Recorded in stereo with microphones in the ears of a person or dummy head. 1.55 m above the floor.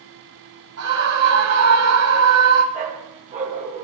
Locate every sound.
0.8 s a scream: 80° right, 1.6 m
2.7 s a dog barking: 40° right (ahead or behind), 1.8 m